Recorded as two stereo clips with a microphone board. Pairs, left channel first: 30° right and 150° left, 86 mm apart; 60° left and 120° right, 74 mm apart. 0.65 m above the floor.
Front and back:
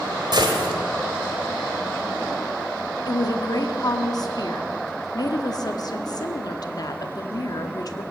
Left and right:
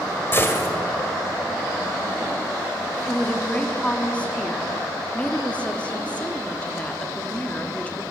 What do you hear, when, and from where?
0.3 s a gunshot: 115° left, 2.0 m
3.1 s a woman speaking: 10° right, 1.2 m